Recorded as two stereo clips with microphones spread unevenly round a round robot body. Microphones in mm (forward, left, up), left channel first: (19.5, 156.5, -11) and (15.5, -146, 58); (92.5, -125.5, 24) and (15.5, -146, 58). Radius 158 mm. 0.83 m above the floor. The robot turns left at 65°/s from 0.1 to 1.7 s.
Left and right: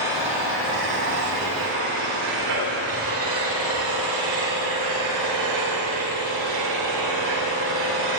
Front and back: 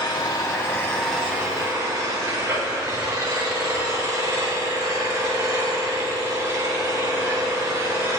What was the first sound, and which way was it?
An engine running, 10° right.